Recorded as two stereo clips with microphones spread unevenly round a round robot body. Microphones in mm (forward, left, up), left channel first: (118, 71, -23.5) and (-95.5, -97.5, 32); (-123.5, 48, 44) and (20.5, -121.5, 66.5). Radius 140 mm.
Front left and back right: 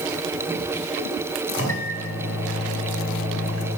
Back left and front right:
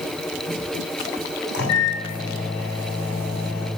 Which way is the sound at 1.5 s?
90° left.